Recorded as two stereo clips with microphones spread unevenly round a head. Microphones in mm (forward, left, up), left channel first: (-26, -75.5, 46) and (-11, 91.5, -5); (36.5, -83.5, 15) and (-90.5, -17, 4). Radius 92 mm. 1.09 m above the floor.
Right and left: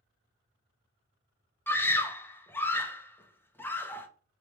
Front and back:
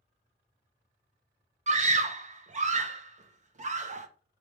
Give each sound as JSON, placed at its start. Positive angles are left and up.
{"t": 1.7, "sound": "a scream", "azimuth_deg": 175, "distance_m": 0.8}